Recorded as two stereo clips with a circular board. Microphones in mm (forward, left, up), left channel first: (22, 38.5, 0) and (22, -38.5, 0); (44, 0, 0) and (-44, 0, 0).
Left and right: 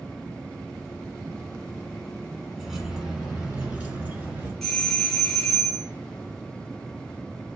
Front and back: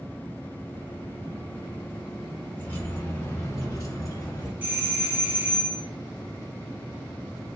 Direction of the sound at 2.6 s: 5° right.